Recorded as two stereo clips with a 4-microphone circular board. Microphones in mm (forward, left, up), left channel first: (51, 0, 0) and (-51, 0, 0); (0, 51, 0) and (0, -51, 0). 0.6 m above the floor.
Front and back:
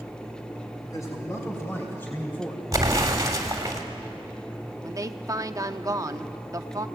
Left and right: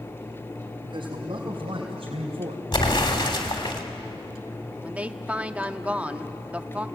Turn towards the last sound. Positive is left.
turn(degrees=-160)